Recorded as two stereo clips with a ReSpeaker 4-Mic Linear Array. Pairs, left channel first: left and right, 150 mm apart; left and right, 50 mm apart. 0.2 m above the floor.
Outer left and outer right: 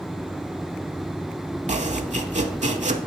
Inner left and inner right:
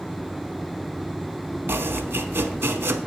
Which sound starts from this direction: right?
Chopping, at 1.7 s.